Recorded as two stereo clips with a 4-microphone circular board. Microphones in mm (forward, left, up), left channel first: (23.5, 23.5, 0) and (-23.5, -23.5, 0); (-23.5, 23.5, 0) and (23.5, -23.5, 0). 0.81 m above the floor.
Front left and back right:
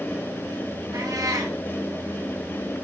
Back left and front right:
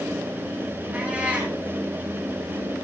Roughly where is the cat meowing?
Behind right.